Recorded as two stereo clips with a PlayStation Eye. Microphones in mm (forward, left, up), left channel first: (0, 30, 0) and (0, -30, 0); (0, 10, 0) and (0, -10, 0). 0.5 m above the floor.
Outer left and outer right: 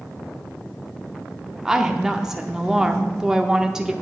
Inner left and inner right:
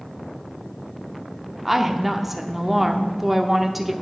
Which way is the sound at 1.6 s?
10° right (ahead or behind).